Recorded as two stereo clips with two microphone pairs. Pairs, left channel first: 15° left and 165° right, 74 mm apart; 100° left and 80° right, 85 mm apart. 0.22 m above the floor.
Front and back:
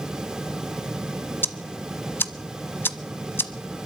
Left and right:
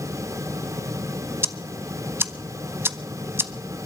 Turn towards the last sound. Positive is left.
turn(degrees=-30)